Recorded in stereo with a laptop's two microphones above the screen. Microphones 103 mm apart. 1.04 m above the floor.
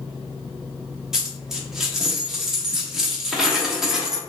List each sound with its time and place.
1.1 s a dropped coin: 5° right (ahead or behind), 0.6 m